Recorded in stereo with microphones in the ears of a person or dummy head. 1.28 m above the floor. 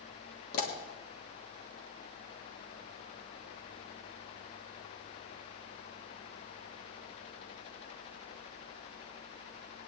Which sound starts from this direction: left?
A pop, at 0.5 s.